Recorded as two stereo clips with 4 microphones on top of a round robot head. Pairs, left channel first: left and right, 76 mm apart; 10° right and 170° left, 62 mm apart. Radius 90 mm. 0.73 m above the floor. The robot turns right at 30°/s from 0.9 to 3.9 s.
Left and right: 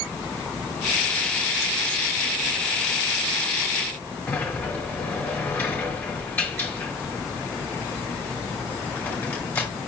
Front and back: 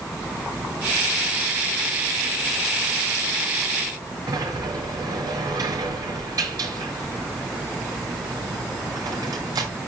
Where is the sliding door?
155° left, 5.5 m.